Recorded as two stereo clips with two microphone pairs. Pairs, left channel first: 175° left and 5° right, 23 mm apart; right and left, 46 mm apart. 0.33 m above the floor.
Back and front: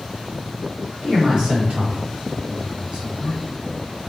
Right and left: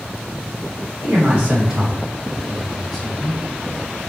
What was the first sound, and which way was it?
A man speaking, 45° left.